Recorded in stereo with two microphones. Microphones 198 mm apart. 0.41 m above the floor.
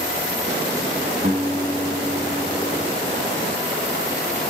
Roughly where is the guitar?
Right.